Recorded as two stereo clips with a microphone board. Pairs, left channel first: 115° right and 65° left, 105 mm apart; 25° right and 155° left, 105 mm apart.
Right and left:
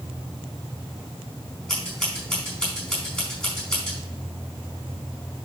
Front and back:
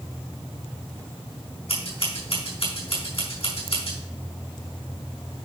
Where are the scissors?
30° right, 4.5 m.